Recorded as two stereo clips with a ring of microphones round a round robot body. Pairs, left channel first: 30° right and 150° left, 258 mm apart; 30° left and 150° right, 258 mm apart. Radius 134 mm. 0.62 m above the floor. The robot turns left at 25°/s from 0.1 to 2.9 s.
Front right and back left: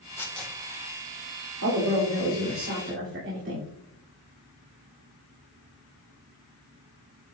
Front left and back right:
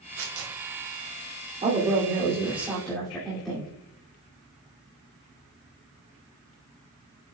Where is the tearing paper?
110° right, 2 m; by 0.6 s 120° right, 2 m.